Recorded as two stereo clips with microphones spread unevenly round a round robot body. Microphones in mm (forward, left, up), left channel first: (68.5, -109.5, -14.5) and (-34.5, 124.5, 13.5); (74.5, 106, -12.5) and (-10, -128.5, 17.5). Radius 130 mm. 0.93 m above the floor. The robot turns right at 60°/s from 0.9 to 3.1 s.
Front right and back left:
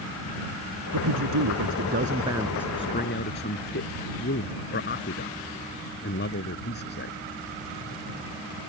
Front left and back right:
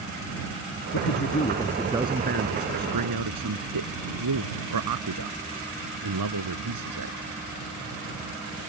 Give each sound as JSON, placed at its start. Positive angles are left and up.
{"t": 0.9, "sound": "a man speaking", "azimuth_deg": 110}